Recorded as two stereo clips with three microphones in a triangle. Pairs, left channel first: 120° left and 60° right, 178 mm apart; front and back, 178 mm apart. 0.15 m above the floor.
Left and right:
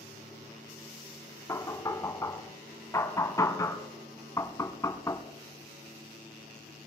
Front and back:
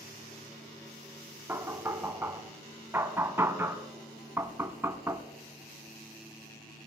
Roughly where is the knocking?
Behind left.